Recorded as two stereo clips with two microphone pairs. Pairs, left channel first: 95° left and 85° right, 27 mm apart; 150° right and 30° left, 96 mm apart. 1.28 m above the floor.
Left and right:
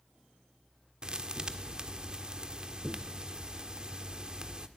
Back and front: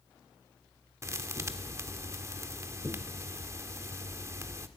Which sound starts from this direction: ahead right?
A thud, at 1.0 s.